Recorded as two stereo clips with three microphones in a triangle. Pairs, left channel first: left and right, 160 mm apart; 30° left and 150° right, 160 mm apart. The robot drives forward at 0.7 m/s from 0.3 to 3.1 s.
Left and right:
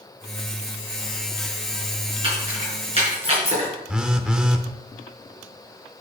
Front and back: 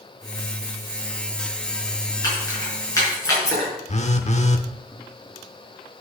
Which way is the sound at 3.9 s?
5° right.